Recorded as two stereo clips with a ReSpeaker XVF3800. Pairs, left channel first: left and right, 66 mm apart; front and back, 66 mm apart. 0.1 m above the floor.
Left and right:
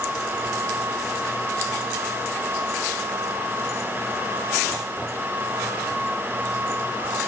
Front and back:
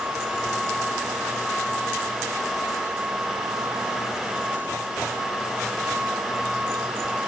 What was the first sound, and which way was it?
Only background noise.